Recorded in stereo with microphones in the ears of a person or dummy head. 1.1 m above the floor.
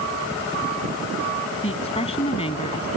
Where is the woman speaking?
25° left (ahead or behind).